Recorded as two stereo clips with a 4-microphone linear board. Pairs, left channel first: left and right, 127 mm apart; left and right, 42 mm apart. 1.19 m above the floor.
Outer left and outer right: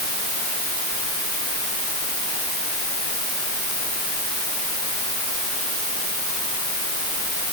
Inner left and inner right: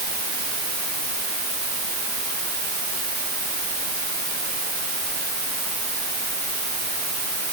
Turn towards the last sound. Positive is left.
No sound to turn to.